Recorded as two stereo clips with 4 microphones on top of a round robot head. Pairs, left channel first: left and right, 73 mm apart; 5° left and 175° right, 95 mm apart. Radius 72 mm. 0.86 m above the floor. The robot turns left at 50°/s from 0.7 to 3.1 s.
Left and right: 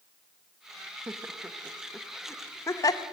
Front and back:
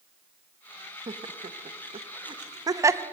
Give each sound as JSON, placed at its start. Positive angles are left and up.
{"t": 1.1, "sound": "laughter", "azimuth_deg": -140, "distance_m": 0.7}